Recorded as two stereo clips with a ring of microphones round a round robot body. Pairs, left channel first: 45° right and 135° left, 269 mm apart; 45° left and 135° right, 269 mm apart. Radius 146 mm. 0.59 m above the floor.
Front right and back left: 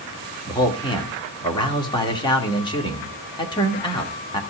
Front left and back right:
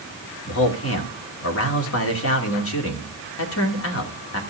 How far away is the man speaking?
About 2 m.